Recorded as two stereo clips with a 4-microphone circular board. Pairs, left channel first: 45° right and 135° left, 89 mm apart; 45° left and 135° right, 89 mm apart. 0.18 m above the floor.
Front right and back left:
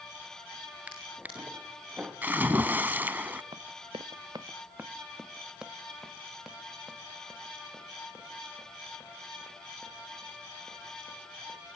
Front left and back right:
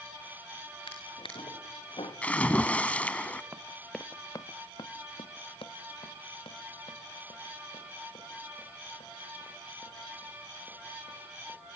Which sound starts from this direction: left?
A splash, at 2.2 s.